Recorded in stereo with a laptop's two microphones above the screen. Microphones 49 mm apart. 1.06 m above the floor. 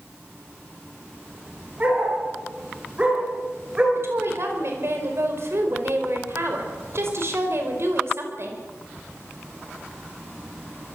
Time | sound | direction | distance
1.8 | a dog barking | 25° right (ahead or behind) | 6 m
4.0 | a woman speaking | 55° right (ahead or behind) | 5 m